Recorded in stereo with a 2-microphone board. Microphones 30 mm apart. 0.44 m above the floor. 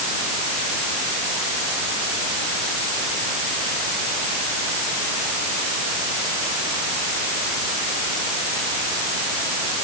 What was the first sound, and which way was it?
Only background noise.